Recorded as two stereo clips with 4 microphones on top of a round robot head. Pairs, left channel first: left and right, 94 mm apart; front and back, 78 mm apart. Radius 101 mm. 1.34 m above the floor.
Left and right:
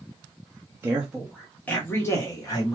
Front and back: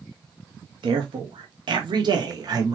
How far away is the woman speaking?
About 0.6 m.